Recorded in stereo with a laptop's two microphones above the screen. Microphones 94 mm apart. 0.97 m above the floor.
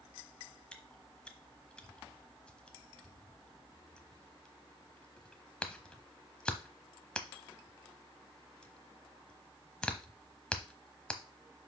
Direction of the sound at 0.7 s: 10° left (ahead or behind).